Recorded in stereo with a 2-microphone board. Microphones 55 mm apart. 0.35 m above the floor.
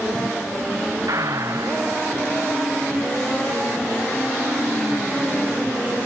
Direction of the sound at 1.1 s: 80° right.